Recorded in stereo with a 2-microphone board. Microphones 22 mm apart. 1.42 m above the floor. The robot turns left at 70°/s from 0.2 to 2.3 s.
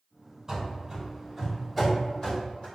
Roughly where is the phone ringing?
No phone ringing in this recording.